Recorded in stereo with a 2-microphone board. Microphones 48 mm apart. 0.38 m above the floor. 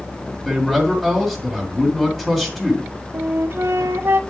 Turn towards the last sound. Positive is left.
turn(degrees=-55)  # may be behind; listen again after turning